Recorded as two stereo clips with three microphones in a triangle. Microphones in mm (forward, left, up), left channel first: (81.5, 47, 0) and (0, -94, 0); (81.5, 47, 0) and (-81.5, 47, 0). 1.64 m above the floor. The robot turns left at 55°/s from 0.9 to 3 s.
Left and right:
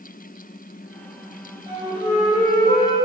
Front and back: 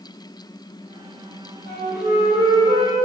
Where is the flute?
Straight behind, 3.5 m; by 3.0 s 110° left, 3.5 m.